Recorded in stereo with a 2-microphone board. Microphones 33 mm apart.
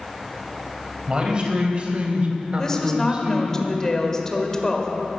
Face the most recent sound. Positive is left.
turn(degrees=20)  # may be behind; listen again after turning